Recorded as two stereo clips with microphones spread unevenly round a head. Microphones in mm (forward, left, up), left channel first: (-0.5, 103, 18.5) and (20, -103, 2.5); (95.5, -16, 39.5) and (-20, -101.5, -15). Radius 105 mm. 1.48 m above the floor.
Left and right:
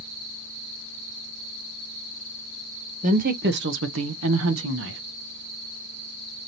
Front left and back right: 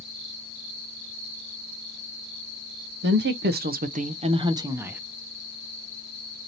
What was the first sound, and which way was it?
A woman speaking, 140° right.